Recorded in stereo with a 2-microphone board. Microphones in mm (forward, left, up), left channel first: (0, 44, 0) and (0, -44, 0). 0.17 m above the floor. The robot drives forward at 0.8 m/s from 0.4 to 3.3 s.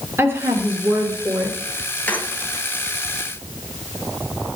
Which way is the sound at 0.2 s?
25° right (ahead or behind).